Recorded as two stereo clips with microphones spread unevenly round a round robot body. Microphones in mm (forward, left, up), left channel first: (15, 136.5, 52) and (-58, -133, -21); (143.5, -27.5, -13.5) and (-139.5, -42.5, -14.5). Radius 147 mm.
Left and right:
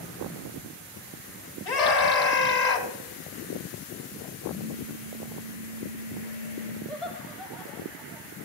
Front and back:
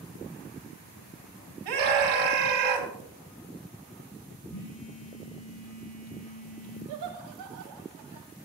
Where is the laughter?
170° left, 2 m.